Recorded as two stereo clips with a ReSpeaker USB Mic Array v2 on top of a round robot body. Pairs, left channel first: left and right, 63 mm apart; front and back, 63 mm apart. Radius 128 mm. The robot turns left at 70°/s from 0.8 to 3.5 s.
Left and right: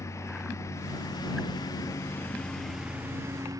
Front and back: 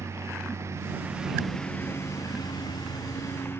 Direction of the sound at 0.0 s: 135° left.